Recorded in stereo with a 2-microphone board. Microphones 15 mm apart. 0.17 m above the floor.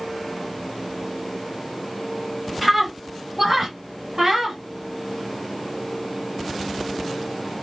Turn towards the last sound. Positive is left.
turn(degrees=-25)  # may be behind; listen again after turning